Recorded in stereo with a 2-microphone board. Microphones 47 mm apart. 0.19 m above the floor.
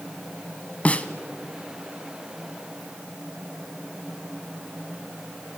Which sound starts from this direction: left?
A snare drum, at 0.8 s.